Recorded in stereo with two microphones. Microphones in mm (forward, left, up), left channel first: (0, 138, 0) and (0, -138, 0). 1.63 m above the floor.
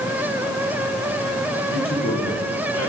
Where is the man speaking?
50° left (ahead or behind), 1.3 m; by 2.9 s 60° left (ahead or behind), 2 m.